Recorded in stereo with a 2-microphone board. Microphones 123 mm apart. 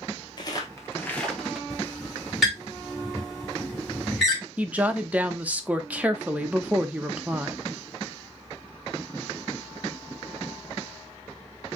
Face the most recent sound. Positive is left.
turn(degrees=-10)  # may be behind; listen again after turning